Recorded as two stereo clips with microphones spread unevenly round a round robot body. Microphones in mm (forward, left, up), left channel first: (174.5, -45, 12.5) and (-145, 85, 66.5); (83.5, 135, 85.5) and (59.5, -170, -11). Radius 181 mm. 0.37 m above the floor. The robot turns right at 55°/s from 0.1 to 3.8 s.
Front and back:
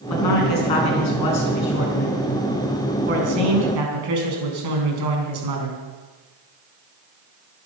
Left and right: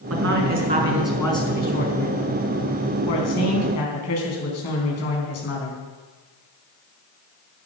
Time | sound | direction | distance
0.1 | a man speaking | 65° right | 4.5 m